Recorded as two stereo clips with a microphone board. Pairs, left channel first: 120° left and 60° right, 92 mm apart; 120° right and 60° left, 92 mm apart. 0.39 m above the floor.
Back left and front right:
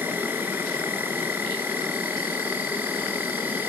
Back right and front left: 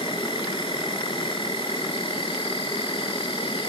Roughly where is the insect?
Behind right.